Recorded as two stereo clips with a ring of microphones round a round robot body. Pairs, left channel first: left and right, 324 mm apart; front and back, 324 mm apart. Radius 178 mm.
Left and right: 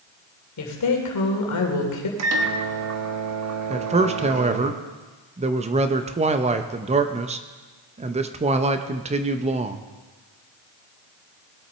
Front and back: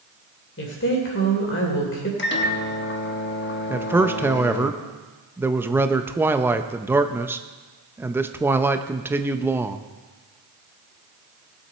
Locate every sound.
0.6 s a woman speaking: 60° left, 2.5 m
2.2 s a microwave: 55° right, 1.2 m
3.7 s a man speaking: 110° right, 0.6 m